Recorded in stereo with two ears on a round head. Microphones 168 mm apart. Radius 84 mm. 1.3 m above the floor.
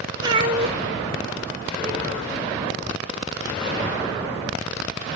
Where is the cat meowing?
25° right (ahead or behind), 1.5 m; by 2.3 s 60° right (ahead or behind), 1.8 m.